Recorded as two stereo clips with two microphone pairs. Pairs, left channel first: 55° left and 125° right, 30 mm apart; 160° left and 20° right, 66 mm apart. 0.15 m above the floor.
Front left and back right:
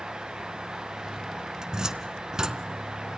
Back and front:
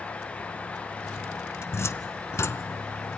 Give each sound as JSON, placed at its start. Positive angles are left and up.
{"t": 1.6, "sound": "a cupboard door", "azimuth_deg": 175, "distance_m": 0.8}